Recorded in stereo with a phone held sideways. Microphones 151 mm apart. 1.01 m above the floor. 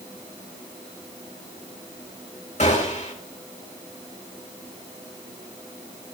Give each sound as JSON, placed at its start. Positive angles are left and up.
{"t": 2.6, "sound": "a gunshot", "side_deg": 50, "distance_m": 2.5}